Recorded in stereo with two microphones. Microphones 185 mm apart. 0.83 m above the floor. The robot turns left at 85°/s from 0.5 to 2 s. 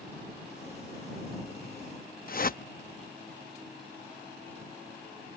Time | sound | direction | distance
2.3 | a whoosh | 50° left (ahead or behind) | ?